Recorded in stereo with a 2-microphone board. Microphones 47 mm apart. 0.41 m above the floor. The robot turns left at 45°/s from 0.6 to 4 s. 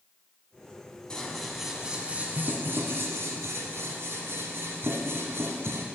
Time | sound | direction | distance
1.1 | scissors | 15° left | 1.0 m